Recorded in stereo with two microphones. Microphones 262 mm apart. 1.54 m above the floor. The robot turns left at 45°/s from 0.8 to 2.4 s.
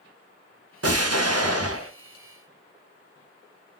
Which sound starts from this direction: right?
An explosion, at 0.8 s.